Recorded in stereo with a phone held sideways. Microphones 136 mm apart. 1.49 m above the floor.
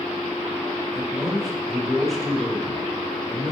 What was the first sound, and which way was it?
A man speaking, centre (ahead or behind).